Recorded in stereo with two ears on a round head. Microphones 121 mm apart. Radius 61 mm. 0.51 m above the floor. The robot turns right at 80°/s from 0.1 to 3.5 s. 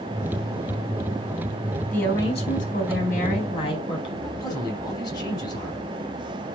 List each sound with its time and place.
1.9 s a woman speaking: 10° left, 3.5 m; by 4.1 s 135° left, 3.5 m
4.2 s a man speaking: 30° left (ahead or behind), 4 m